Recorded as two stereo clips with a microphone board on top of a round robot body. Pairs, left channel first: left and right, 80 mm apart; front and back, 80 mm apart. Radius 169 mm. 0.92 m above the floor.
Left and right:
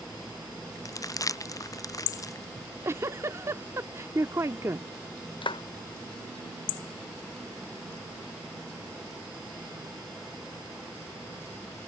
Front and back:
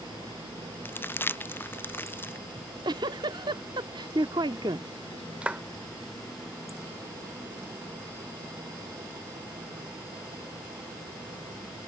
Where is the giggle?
145° right.